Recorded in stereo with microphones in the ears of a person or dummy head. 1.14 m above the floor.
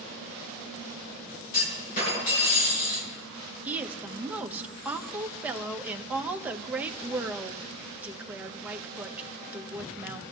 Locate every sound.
1.5 s a clunk: 45° left (ahead or behind), 6 m
3.6 s a woman speaking: 10° right (ahead or behind), 1.1 m